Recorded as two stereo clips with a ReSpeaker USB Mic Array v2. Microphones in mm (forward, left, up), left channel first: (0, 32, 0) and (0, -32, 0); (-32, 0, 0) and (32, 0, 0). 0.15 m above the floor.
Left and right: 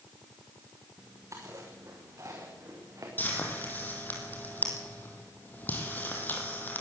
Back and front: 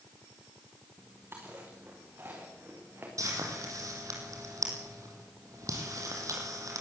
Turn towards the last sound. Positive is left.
turn(degrees=30)